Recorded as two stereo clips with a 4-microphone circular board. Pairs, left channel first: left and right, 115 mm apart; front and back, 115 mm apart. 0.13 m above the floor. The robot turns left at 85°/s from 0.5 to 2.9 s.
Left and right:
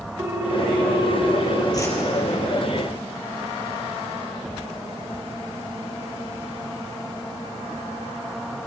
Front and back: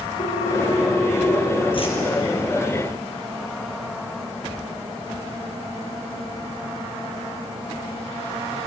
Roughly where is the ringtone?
Ahead right.